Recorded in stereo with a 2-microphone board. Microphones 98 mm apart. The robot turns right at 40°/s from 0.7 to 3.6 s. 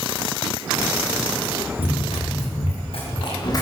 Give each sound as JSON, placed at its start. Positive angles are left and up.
{"t": 1.8, "sound": "running footsteps", "side_deg": 65, "distance_m": 6.5}